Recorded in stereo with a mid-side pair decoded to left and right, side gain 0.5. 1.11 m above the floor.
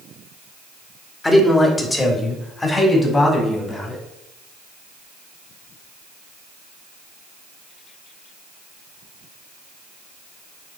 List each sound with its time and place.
1.2 s a man speaking: 15° left, 3 m; by 4.0 s 25° left, 5.5 m